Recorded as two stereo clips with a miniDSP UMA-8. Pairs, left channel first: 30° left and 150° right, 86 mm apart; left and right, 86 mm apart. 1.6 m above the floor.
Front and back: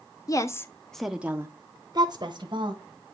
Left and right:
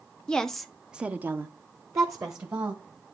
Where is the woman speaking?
15° left, 0.6 m; by 2.8 s 145° right, 1.1 m.